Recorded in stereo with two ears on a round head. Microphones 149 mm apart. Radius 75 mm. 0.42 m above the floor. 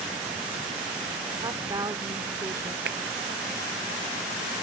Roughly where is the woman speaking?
Right.